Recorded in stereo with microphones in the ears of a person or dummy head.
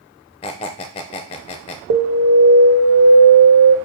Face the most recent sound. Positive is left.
turn(degrees=-70)  # may be behind; listen again after turning